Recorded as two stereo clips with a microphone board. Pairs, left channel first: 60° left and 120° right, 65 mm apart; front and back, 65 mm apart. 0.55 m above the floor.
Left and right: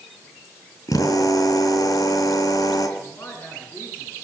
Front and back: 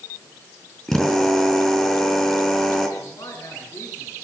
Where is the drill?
85° left, 3.5 m.